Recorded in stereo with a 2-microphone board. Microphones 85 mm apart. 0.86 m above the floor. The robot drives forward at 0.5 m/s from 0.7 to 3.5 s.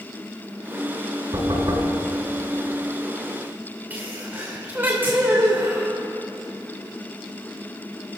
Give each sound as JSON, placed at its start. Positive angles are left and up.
{"t": 1.3, "sound": "knocking", "side_deg": -55, "distance_m": 6.0}
{"t": 3.9, "sound": "a sneeze", "side_deg": -25, "distance_m": 2.5}